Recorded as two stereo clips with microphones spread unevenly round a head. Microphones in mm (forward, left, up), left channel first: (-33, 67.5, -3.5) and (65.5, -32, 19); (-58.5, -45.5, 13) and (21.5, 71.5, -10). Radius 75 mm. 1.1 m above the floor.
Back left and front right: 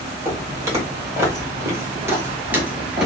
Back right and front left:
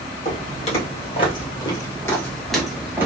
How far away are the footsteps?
About 2 m.